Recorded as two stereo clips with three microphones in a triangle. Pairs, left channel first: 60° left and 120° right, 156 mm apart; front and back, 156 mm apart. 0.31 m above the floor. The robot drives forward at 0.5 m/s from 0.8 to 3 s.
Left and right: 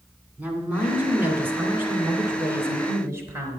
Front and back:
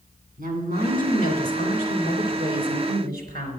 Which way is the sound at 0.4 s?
160° left.